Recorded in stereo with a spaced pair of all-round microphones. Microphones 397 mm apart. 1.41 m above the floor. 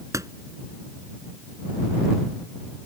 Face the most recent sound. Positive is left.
turn(degrees=-10)  # may be behind; listen again after turning